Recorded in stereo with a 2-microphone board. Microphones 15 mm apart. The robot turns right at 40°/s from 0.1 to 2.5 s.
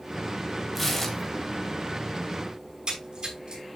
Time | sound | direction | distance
0.8 | tearing paper | 10° right (ahead or behind) | 2.5 m
2.6 | a splash | 50° right (ahead or behind) | 5.5 m